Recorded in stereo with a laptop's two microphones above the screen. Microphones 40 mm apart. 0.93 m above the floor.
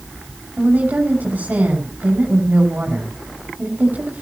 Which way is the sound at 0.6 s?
50° right (ahead or behind).